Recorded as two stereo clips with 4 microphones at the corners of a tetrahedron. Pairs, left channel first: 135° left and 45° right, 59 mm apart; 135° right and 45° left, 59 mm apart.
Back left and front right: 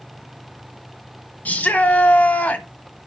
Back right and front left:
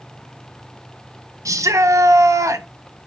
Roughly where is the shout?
Left.